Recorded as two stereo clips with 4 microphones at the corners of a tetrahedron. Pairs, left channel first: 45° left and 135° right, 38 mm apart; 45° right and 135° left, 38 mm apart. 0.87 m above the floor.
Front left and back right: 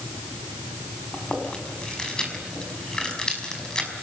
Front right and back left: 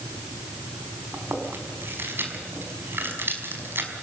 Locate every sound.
1.1 s chewing: 115° left, 5 m